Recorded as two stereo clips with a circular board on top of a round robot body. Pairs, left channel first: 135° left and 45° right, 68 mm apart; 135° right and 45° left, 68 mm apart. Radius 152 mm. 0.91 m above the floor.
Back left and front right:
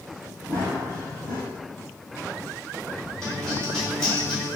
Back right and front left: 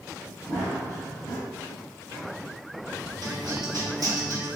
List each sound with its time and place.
0.5 s running footsteps: 15° left, 1.6 m
3.2 s a guitar: 50° left, 1.9 m